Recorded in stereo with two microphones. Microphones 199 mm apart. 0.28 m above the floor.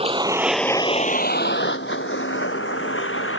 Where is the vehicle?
30° right (ahead or behind); by 3.4 s 85° left.